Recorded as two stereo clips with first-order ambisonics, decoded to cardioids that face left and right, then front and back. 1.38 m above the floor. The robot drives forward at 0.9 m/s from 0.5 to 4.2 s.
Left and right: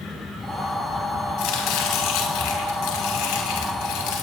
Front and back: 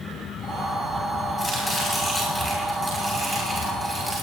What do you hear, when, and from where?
1.4 s chopping: 80° left, 7.5 m; by 4.2 s 100° left, 7.5 m